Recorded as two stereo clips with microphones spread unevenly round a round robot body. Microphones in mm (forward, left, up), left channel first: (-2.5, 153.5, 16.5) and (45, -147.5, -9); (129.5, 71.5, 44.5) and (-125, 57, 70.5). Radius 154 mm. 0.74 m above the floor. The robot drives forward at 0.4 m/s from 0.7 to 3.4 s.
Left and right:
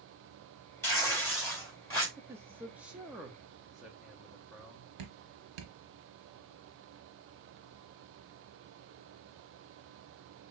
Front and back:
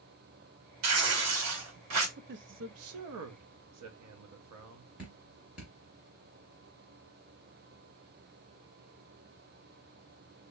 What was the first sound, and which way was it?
Tearing paper, 175° right.